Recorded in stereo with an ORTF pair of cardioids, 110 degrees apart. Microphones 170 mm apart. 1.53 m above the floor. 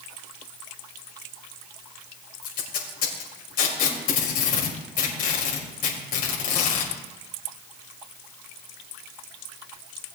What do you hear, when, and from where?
2.4 s tape being pulled: 60° left, 4.5 m